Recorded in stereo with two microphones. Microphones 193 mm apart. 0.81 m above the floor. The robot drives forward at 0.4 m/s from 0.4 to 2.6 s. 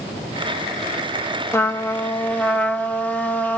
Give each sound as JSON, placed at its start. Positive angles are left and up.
{"t": 1.5, "sound": "a trumpet", "side_deg": 15, "distance_m": 0.8}